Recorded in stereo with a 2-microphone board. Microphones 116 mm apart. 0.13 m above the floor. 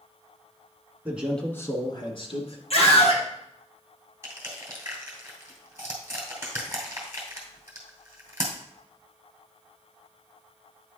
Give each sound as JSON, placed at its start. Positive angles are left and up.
{"t": 1.1, "sound": "a man speaking", "side_deg": -15, "distance_m": 1.1}
{"t": 2.7, "sound": "a scream", "side_deg": 65, "distance_m": 3.0}
{"t": 4.2, "sound": "crushing", "side_deg": -20, "distance_m": 2.5}